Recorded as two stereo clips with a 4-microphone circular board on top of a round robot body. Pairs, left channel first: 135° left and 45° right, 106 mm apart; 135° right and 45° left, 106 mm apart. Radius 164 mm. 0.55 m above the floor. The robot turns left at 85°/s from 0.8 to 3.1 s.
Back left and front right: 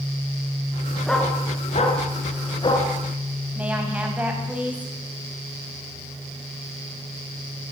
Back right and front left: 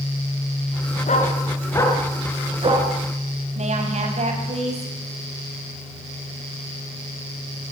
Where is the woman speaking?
35° left, 6 m.